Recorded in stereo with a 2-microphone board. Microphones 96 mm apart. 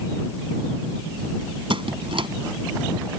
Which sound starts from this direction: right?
A squeak, at 1.7 s.